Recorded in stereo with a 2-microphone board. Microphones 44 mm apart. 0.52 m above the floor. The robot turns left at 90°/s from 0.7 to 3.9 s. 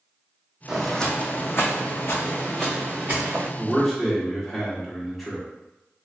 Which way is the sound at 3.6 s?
20° right (ahead or behind).